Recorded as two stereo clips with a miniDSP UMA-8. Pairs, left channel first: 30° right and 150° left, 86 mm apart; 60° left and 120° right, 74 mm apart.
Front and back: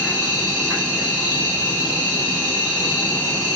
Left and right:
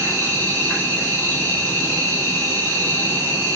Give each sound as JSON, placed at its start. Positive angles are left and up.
{"t": 0.0, "sound": "an insect", "azimuth_deg": 90, "distance_m": 1.9}